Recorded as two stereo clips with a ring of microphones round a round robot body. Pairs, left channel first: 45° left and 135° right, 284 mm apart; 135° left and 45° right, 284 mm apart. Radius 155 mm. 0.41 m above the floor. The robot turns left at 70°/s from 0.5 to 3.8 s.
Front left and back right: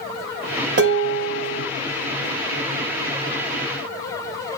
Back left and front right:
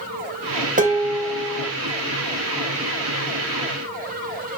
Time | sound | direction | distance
0.8 | dishes clattering | 100° right | 0.8 m